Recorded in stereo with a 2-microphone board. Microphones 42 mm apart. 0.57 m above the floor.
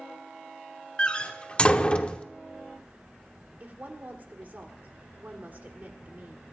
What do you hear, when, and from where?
1.0 s a door slam: 25° left (ahead or behind), 0.8 m
3.6 s a woman speaking: 50° right (ahead or behind), 1.8 m